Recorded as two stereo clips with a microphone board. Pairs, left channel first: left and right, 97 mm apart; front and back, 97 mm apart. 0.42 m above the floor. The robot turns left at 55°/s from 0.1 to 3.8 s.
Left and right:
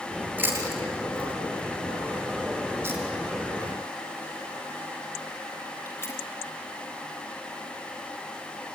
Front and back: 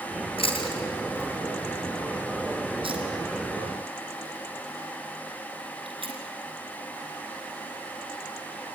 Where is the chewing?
20° right, 4 m; by 6.2 s 150° left, 4 m.